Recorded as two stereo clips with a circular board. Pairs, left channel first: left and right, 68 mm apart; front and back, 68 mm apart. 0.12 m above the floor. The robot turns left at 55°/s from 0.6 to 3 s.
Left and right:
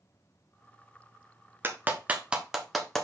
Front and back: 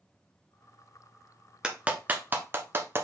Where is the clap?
115° right, 1.3 m; by 3.0 s 170° left, 1.3 m.